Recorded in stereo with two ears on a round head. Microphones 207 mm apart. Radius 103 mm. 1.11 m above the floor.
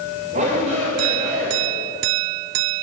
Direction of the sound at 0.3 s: 35° right (ahead or behind).